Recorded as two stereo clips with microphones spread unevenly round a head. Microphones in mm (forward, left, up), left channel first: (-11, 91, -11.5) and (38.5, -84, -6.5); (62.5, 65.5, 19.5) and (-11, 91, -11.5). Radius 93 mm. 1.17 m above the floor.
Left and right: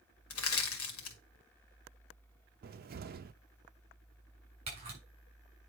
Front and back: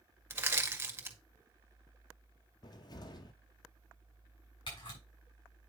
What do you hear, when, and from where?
0.3 s crushing: 100° left, 1.8 m
2.6 s a cupboard door: 40° right, 0.6 m
4.7 s a camera shutter: 15° right, 5.5 m